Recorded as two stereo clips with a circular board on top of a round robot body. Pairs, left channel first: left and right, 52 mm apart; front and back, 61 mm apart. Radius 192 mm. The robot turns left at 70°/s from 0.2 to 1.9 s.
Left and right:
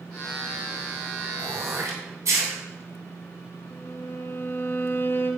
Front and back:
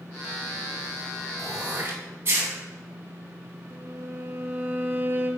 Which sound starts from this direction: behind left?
A violin, at 3.7 s.